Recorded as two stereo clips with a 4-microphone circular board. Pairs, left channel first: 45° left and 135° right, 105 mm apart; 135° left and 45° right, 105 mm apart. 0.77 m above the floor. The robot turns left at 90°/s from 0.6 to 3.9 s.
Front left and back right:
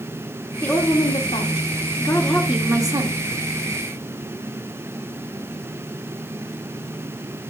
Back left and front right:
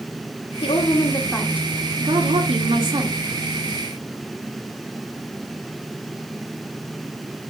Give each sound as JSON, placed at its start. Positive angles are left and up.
{"t": 0.6, "sound": "a woman speaking", "azimuth_deg": 120, "distance_m": 1.8}